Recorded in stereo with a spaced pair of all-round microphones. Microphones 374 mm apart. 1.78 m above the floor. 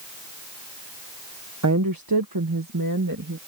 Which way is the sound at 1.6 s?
45° right (ahead or behind).